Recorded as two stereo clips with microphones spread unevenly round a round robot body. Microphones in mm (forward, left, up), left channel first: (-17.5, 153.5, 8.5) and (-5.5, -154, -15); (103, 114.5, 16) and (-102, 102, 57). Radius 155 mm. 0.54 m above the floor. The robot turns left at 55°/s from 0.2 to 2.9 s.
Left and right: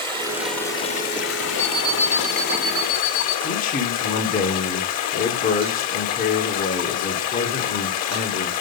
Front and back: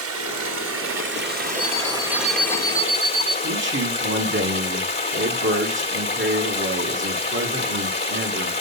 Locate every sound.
0.0 s running water: 160° right, 1.6 m; by 8.6 s 55° left, 1.6 m
1.6 s an alarm clock: 80° right, 3 m; by 3.3 s 150° right, 3 m
3.4 s a man speaking: 155° left, 1.4 m